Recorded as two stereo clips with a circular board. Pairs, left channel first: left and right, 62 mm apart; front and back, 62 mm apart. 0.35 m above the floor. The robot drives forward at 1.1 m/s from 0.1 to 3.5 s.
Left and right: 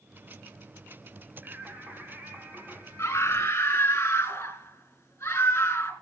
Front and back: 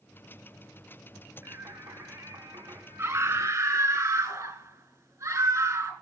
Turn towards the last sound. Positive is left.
turn(degrees=145)